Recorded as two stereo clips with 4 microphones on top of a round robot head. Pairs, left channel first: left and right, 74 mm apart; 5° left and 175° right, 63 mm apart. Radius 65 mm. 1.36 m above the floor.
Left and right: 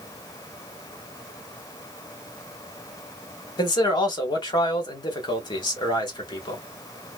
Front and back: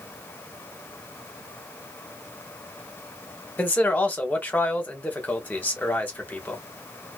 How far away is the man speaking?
About 1.3 m.